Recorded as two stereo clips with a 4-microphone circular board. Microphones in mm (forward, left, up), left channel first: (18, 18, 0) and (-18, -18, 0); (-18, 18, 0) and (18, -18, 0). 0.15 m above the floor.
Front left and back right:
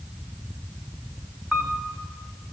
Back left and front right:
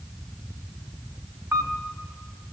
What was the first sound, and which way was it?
A camera shutter, 60° right.